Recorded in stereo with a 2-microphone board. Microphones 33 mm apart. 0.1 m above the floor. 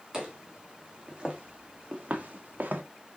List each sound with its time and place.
0.1 s footsteps: 20° right (ahead or behind), 2 m; by 2.8 s 60° right (ahead or behind), 0.9 m